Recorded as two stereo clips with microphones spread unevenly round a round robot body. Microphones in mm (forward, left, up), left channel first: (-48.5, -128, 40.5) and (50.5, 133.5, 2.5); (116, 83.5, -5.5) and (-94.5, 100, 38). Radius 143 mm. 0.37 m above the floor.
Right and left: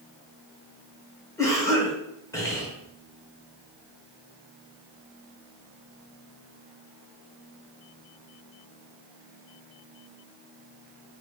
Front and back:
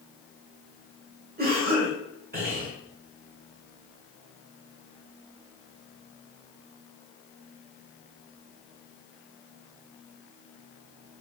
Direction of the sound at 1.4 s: 165° left.